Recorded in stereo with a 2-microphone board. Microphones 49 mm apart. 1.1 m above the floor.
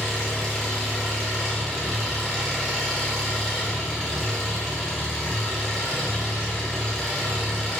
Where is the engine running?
5° right (ahead or behind), 1.5 m.